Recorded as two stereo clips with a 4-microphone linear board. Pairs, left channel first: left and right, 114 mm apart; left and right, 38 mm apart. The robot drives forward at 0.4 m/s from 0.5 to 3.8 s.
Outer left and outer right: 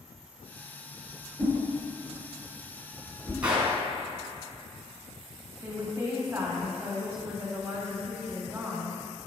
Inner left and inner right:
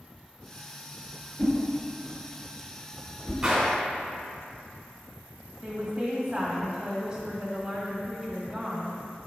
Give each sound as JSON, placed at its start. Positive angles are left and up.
{"t": 1.4, "sound": "a whoosh", "side_deg": 15, "distance_m": 2.0}
{"t": 3.4, "sound": "a gunshot", "side_deg": -10, "distance_m": 1.8}
{"t": 5.6, "sound": "a woman speaking", "side_deg": -20, "distance_m": 1.6}